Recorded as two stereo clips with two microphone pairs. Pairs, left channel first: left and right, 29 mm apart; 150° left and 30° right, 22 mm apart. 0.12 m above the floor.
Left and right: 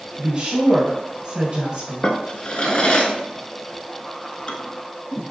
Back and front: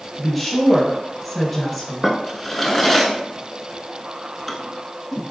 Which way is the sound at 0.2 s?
150° right.